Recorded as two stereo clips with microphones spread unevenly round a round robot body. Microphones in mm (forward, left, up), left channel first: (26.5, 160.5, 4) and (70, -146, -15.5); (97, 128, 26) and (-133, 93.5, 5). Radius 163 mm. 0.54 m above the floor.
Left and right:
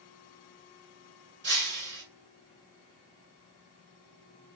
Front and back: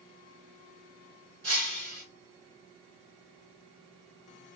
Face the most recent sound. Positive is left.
turn(degrees=-140)